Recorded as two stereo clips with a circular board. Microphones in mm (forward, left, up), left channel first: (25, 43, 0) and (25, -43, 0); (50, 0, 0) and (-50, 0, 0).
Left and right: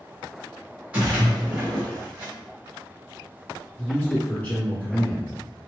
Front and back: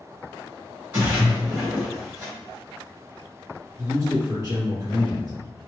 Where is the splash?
140° right, 1.8 m.